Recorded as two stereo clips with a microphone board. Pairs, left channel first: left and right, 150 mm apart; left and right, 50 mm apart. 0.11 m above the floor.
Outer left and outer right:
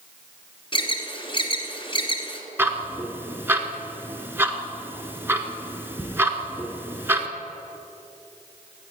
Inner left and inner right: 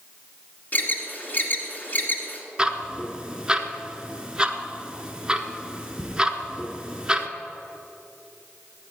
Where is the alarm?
35° left (ahead or behind), 1.5 m.